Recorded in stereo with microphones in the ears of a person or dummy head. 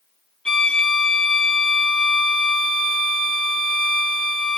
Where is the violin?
5° left (ahead or behind), 1.1 m.